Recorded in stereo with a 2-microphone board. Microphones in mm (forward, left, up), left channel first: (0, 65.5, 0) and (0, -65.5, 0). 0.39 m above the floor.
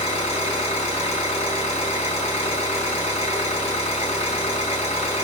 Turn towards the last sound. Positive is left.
turn(degrees=50)  # may be behind; listen again after turning